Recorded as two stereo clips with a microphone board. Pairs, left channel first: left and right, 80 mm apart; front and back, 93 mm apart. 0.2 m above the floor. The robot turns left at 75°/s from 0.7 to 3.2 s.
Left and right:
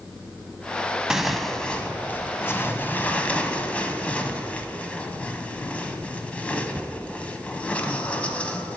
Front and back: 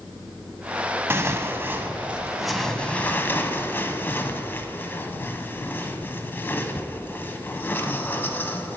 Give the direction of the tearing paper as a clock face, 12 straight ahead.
5 o'clock.